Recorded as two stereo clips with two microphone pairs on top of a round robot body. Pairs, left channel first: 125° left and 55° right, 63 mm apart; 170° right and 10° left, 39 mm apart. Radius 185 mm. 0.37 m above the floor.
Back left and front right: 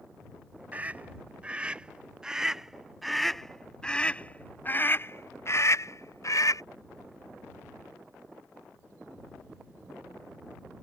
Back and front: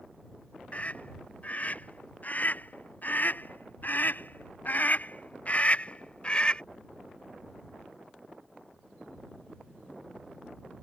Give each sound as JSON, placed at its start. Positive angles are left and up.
{"t": 0.7, "sound": "a scream", "azimuth_deg": -120}